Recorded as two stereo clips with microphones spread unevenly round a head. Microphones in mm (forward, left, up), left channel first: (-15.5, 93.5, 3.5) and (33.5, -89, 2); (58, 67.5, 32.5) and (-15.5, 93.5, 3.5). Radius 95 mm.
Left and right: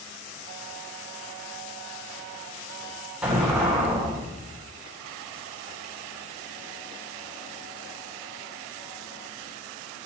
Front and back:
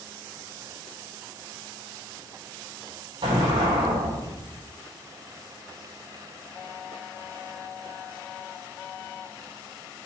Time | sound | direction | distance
3.2 | an explosion | 160° right | 3 m